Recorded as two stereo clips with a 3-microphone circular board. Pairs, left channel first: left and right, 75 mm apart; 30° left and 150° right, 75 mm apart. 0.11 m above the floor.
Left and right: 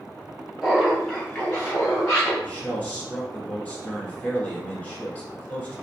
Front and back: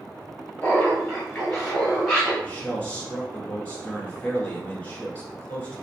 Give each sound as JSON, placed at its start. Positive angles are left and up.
{"t": 0.6, "sound": "laughter", "azimuth_deg": -15, "distance_m": 1.3}
{"t": 2.4, "sound": "a man speaking", "azimuth_deg": 70, "distance_m": 1.1}